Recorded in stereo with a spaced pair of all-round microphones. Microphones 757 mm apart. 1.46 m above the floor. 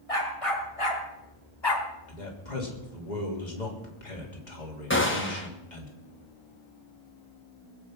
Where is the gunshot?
15° left (ahead or behind), 1.7 m.